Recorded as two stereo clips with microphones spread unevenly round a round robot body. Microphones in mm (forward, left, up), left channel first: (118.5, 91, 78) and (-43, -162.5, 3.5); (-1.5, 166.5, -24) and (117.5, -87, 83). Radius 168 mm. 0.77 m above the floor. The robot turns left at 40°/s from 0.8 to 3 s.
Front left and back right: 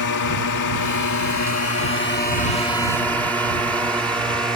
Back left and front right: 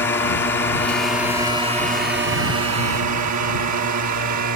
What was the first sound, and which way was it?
A drone, 55° left.